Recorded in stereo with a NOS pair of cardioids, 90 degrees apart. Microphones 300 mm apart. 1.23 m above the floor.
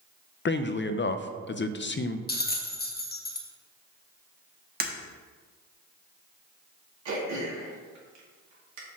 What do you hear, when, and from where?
0.5 s a man speaking: 35° left, 0.6 m
2.3 s a bell: 30° left, 1.1 m
4.8 s breaking glass: 30° right, 1.3 m
7.0 s throat clearing: 65° right, 2.5 m